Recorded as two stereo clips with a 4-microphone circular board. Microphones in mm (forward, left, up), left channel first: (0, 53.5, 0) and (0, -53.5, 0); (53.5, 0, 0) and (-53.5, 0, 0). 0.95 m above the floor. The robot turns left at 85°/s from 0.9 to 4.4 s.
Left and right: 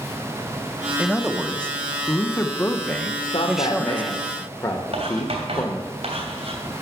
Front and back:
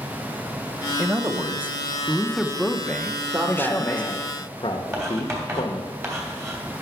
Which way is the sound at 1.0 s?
155° right.